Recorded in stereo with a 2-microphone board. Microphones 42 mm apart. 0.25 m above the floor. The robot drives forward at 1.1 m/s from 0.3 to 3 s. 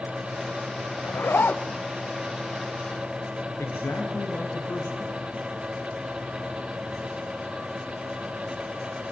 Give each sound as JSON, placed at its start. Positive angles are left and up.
{"t": 1.0, "sound": "a zipper", "side_deg": 65, "distance_m": 0.8}
{"t": 3.6, "sound": "a man speaking", "side_deg": 70, "distance_m": 5.0}